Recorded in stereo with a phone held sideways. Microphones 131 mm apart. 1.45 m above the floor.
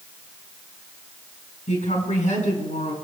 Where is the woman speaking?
80° left, 5.5 m.